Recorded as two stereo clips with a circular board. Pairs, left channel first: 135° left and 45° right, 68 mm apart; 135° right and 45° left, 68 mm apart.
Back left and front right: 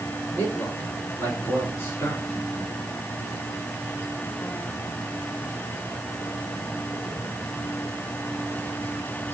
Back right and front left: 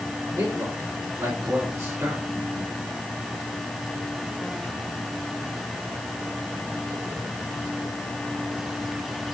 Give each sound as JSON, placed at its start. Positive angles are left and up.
{"t": 0.4, "sound": "a man speaking", "azimuth_deg": 80, "distance_m": 4.0}